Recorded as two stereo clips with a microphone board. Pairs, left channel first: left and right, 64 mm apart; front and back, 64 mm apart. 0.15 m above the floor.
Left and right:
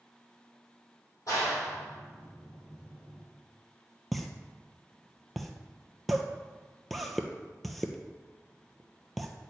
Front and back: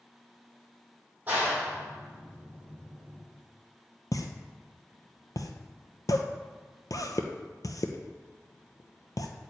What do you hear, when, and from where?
1.3 s a clap: 120° left, 4 m
4.1 s a pop: straight ahead, 0.8 m